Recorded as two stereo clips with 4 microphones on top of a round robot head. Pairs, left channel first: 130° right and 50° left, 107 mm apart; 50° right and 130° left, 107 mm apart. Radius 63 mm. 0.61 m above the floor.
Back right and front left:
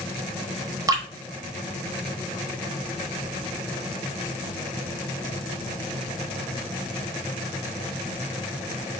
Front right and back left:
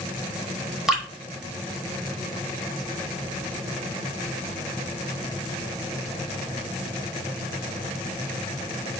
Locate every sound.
0.9 s dripping: 50° left, 1.4 m